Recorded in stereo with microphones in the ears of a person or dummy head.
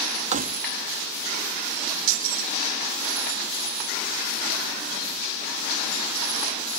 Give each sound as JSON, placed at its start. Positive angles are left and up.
{"t": 0.3, "sound": "keys jangling", "side_deg": -35}